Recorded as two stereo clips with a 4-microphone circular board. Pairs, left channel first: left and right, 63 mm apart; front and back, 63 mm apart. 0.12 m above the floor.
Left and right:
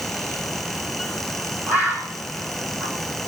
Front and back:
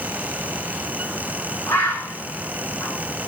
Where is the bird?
35° right, 3.5 m.